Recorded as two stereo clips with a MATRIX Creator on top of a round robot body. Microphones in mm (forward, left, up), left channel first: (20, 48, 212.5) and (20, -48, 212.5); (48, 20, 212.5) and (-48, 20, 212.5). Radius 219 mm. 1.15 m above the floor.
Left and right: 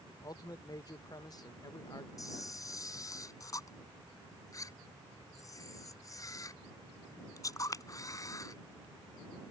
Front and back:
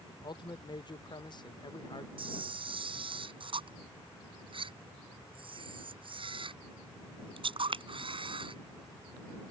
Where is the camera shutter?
145° left.